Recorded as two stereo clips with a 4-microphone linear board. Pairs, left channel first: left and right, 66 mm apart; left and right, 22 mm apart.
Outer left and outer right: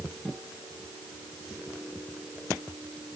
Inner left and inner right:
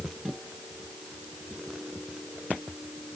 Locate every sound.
Only background noise.